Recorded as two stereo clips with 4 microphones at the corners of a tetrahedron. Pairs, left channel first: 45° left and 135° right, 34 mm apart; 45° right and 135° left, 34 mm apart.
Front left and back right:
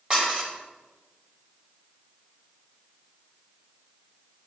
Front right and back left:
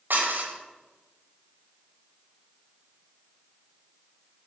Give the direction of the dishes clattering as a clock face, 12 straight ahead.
7 o'clock.